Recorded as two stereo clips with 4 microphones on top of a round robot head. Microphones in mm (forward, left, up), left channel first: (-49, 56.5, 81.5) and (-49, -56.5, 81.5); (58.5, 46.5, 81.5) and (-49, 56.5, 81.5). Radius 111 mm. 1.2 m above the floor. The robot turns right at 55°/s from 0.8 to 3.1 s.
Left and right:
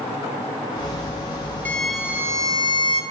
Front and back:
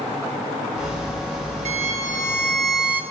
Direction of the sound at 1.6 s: 165° left.